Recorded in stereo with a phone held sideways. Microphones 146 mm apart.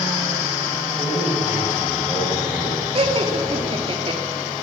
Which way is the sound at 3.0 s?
40° right (ahead or behind).